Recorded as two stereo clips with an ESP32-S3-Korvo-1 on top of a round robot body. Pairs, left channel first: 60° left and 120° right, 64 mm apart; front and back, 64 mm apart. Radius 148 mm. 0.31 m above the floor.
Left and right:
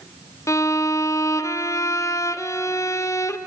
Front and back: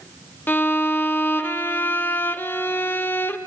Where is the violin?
50° left, 1.1 m.